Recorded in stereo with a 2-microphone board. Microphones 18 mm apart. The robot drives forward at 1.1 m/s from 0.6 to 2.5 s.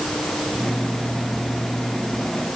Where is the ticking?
No ticking in this recording.